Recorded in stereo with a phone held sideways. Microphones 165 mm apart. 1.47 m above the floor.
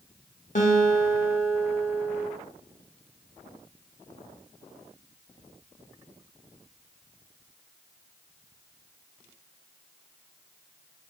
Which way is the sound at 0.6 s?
50° left (ahead or behind).